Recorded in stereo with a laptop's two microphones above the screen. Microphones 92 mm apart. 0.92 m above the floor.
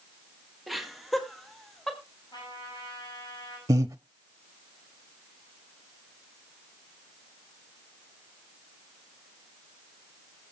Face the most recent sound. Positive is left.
turn(degrees=-40)  # may be behind; listen again after turning